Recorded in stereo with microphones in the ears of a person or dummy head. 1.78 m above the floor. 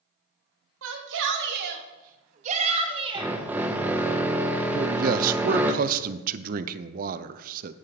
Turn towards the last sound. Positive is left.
turn(degrees=-45)  # may be behind; listen again after turning